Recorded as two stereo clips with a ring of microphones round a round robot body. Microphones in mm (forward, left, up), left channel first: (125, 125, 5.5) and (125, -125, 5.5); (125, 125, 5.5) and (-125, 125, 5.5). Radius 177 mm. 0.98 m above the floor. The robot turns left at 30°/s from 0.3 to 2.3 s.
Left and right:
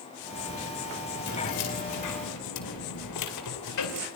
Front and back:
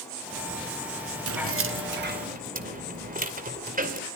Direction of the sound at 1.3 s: 155° left.